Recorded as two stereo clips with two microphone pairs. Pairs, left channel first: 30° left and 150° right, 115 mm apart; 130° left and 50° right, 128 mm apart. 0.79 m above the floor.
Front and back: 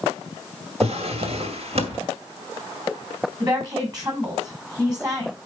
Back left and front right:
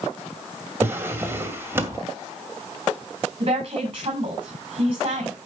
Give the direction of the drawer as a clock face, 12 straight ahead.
4 o'clock.